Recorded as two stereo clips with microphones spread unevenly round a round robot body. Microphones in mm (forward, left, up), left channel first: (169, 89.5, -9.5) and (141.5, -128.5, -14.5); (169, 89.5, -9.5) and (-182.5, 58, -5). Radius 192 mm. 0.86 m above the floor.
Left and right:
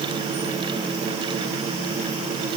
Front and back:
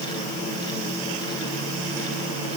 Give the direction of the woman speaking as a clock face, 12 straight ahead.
No woman speaking in this recording.